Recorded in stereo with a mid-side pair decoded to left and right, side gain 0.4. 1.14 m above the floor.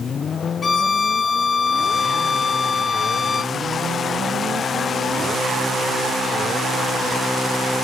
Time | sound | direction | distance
0.6 | a violin | 45° left | 0.7 m